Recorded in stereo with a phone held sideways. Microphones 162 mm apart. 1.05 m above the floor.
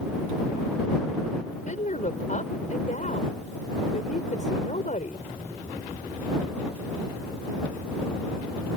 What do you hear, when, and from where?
1.5 s a woman speaking: 55° left (ahead or behind)